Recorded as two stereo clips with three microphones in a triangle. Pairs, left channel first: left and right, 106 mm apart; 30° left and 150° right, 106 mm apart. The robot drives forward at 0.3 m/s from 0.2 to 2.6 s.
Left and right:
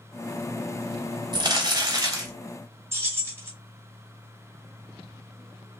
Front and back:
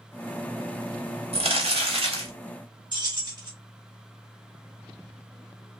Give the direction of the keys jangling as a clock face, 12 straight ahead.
5 o'clock.